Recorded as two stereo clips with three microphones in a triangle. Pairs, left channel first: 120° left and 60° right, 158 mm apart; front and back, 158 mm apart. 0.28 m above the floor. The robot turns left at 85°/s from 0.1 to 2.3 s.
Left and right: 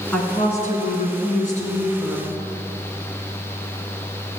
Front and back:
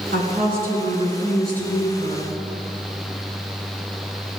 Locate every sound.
0.1 s a woman speaking: 160° right, 3 m; by 2.3 s 20° left, 3 m